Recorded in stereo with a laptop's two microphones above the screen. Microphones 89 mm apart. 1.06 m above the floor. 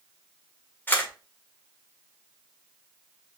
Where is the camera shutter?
25° left (ahead or behind), 1.6 m.